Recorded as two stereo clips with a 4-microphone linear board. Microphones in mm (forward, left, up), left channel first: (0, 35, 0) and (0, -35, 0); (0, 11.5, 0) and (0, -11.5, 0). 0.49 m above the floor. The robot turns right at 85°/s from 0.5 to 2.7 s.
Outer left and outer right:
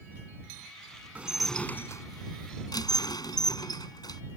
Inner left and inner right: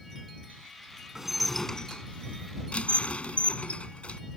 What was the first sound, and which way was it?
Dishes clattering, 20° right.